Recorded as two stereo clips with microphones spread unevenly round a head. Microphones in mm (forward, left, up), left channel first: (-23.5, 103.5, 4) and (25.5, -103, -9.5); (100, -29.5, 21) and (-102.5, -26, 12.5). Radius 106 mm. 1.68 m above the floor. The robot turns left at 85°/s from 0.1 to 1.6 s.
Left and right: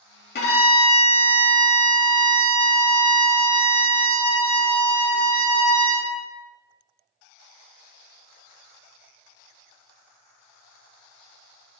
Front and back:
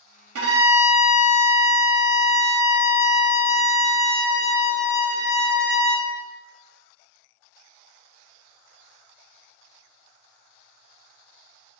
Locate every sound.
0.3 s a violin: 150° left, 0.9 m; by 6.1 s 45° left, 0.9 m